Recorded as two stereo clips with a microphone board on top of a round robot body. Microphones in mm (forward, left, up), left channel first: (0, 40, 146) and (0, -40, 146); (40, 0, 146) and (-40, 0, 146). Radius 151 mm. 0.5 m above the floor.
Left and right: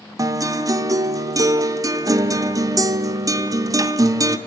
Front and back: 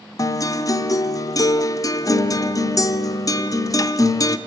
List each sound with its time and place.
0.2 s a guitar: 45° right, 0.8 m